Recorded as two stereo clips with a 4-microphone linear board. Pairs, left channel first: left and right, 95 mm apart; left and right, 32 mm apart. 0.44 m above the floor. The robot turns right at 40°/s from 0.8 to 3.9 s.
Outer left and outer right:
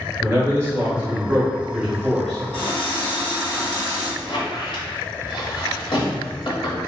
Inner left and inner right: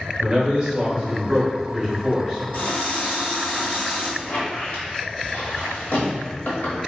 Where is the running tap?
75° left, 1.5 m; by 4.1 s 130° left, 1.5 m.